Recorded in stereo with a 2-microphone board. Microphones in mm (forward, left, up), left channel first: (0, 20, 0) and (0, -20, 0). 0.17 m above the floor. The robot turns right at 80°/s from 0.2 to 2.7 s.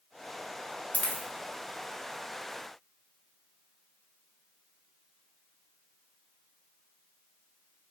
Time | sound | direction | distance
0.9 | a dropped coin | 40° left (ahead or behind) | 0.7 m